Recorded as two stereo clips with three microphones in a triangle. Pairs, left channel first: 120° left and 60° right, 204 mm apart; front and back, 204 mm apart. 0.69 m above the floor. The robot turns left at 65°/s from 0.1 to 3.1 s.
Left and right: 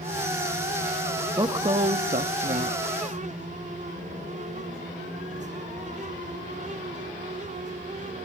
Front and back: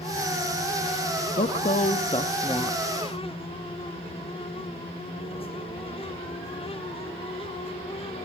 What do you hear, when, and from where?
1.4 s a woman speaking: 5° left, 0.7 m; by 2.8 s 90° right, 0.7 m